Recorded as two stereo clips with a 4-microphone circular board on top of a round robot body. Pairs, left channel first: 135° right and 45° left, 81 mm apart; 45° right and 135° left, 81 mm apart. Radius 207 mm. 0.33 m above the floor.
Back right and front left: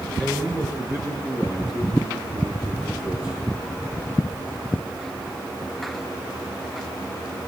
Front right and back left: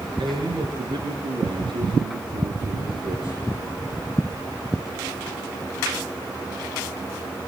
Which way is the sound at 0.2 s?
105° left.